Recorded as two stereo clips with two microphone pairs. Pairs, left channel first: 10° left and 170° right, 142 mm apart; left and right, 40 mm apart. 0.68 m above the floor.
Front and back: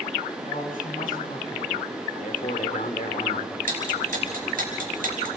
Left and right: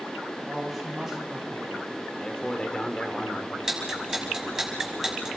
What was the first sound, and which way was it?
A man speaking, straight ahead.